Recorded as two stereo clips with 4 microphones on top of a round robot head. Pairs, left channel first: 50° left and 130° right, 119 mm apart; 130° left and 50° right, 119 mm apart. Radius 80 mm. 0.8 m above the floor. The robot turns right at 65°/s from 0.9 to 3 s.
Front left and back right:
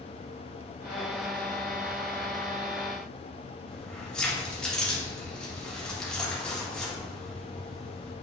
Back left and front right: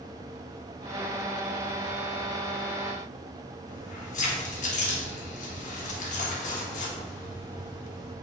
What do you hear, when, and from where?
3.7 s keys jangling: 135° left, 1.6 m